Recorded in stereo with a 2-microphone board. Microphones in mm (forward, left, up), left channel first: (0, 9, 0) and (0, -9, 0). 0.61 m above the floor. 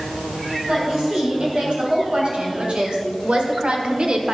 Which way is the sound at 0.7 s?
60° right (ahead or behind).